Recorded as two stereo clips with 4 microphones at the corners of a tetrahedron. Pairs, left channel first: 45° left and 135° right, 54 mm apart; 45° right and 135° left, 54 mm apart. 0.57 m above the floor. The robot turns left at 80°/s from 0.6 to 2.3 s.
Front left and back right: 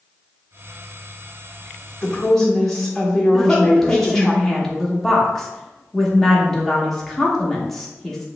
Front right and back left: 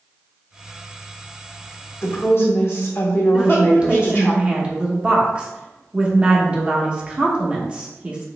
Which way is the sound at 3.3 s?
115° left.